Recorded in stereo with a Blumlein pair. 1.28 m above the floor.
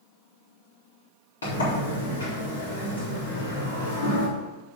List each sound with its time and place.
1.4 s a sliding door: 70° left, 4 m